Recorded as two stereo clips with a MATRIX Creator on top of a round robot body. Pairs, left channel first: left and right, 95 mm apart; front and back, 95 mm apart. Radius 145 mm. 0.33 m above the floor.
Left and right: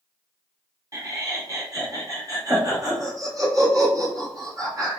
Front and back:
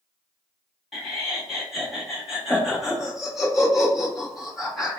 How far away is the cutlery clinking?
No cutlery clinking in this recording.